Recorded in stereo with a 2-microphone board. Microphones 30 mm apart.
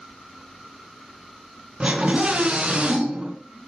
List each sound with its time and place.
1.8 s a scream: 40° right (ahead or behind), 3.5 m